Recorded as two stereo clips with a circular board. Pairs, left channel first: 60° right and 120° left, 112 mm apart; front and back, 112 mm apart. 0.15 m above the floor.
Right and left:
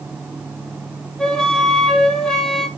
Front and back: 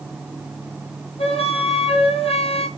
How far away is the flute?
About 3.5 m.